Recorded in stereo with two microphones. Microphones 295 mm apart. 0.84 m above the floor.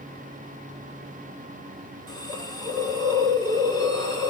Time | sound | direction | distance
2.1 | a hiss | 15° left (ahead or behind) | 1.9 m